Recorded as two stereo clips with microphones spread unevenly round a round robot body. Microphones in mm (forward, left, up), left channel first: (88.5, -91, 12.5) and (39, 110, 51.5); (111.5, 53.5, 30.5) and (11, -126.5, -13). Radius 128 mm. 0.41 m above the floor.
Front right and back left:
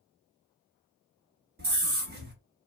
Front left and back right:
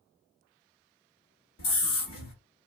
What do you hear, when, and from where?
1.6 s a scream: 65° left, 1.7 m